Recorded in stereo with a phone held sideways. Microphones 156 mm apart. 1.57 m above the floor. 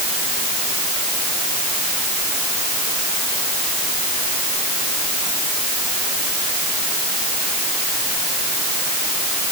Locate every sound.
Only background noise.